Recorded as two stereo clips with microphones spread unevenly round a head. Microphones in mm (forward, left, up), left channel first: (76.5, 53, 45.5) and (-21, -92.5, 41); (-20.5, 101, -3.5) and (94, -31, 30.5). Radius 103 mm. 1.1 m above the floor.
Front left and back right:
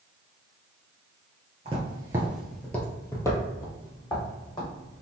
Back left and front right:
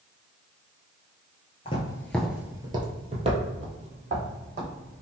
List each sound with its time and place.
1.6 s footsteps: 170° right, 1.2 m; by 5.0 s 10° right, 4 m